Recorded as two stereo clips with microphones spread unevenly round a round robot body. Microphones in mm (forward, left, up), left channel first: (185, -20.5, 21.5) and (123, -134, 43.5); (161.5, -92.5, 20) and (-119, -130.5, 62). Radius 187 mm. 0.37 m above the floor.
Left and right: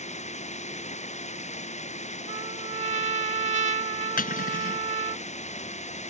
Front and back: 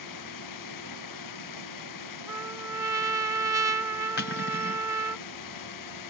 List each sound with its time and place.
0.0 s running water: 35° left
2.3 s a trumpet: 90° right
4.2 s cutlery clinking: 70° left